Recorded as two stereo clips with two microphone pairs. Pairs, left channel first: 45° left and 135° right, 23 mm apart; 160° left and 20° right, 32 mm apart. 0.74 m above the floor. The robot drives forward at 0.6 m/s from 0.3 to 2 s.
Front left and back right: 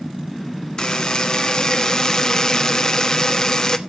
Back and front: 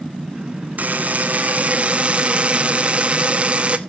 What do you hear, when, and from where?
0.8 s a buzzer: straight ahead, 1.5 m; by 3.8 s 5° left, 0.8 m